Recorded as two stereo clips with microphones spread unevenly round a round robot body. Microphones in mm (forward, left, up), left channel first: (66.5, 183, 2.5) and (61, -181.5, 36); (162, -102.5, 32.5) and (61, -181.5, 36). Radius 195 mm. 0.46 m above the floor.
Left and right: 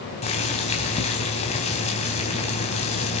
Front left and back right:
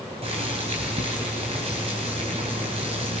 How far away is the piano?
I don't hear a piano.